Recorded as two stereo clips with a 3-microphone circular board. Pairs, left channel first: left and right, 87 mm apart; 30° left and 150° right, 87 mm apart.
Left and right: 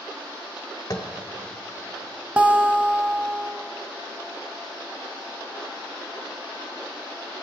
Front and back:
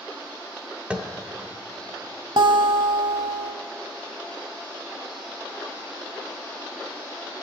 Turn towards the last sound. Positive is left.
turn(degrees=-165)